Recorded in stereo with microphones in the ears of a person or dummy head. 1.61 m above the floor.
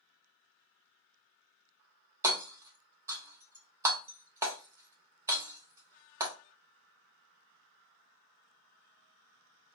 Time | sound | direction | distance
2.2 | hammering | 20° right (ahead or behind) | 1.0 m